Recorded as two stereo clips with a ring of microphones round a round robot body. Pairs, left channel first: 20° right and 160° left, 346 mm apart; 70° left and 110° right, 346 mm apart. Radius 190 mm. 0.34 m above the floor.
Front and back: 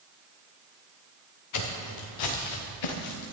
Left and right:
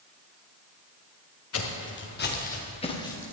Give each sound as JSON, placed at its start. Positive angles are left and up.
{"t": 1.5, "sound": "footsteps", "azimuth_deg": 15, "distance_m": 3.5}